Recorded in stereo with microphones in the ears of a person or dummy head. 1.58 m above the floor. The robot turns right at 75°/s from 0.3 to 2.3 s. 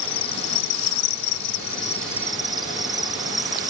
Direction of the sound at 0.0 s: 25° left.